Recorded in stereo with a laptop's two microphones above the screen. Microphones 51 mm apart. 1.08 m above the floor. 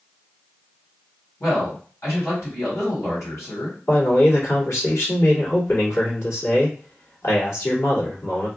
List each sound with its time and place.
1.4 s a man speaking: 75° left (ahead or behind), 2.5 m
3.9 s a man speaking: 60° left (ahead or behind), 2.5 m